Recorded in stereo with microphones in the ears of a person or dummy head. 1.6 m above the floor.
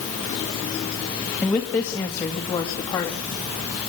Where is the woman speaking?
Centre (ahead or behind), 1.4 m; by 3.3 s 10° left (ahead or behind), 2.5 m.